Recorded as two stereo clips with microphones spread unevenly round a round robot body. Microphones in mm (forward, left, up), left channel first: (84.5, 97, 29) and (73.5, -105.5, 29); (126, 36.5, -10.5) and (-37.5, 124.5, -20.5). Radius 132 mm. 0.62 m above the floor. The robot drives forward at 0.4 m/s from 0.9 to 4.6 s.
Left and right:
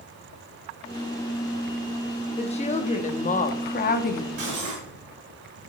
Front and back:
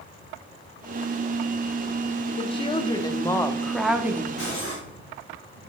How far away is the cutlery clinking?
About 3.5 m.